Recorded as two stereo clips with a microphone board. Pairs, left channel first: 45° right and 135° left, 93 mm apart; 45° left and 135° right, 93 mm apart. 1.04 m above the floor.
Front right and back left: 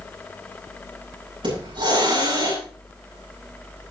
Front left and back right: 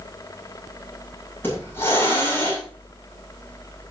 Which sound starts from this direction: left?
A hiss, at 1.4 s.